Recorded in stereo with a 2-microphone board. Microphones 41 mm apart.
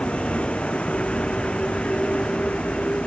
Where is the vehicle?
25° left (ahead or behind).